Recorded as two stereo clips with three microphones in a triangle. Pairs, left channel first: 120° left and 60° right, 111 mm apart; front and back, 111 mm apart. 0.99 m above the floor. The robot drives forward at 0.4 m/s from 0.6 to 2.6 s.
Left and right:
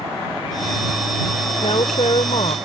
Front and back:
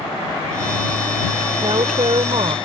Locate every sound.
1.6 s a woman speaking: 145° left; by 2.5 s 150° left